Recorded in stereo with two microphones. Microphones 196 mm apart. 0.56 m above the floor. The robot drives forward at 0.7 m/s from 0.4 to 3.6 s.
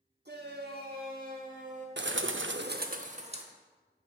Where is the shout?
60° right (ahead or behind), 1.3 m; by 1.9 s 40° right (ahead or behind), 1.8 m.